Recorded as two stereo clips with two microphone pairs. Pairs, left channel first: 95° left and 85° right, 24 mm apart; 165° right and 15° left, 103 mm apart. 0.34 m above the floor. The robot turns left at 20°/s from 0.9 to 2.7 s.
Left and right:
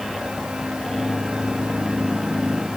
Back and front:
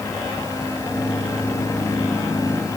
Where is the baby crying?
No baby crying in this recording.